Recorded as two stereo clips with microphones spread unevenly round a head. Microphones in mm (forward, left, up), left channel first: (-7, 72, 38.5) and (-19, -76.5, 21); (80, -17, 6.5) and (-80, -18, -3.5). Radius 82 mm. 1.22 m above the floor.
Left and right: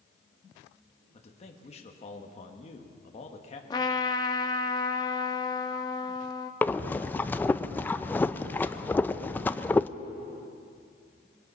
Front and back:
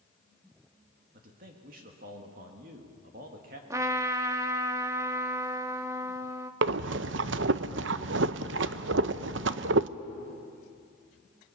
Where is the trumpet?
115° left, 0.7 m.